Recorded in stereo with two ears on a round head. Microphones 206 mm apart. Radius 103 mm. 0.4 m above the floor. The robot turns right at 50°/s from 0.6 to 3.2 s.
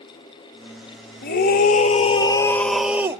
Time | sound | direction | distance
1.2 | a scream | 100° left | 1.4 m